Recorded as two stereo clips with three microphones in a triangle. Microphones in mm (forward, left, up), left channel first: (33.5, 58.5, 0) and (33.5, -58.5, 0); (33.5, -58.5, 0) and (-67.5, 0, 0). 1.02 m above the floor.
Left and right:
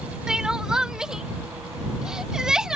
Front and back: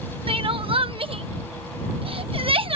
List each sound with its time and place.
0.3 s crying: 175° right